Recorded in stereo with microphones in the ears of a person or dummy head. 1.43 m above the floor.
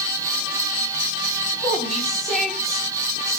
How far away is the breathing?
No breathing in this recording.